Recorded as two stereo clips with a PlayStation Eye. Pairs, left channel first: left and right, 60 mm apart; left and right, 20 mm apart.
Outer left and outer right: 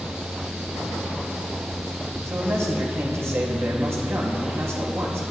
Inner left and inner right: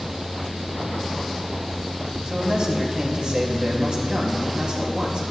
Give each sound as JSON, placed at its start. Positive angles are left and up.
{"t": 2.2, "sound": "a man speaking", "side_deg": -55, "distance_m": 2.5}